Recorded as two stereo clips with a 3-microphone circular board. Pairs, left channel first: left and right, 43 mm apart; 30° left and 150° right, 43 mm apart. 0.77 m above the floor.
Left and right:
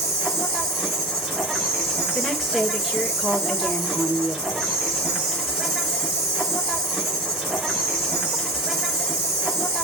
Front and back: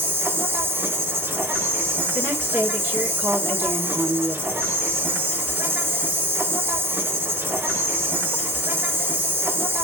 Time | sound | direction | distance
0.0 | an insect | 170° right | 4 m
2.1 | a woman speaking | straight behind | 1.9 m